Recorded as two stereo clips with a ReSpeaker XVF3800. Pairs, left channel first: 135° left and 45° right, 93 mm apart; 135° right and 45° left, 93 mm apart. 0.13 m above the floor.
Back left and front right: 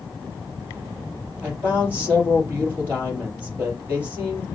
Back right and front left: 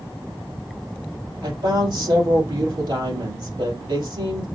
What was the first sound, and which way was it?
A woman speaking, 25° left.